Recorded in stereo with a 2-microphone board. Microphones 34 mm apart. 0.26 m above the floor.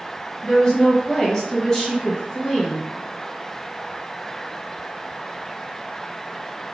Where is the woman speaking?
20° left (ahead or behind), 1.3 m.